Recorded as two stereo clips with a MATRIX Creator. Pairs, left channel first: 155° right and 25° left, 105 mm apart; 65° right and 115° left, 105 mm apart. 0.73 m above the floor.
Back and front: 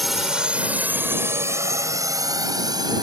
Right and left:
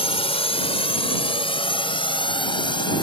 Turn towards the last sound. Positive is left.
turn(degrees=-25)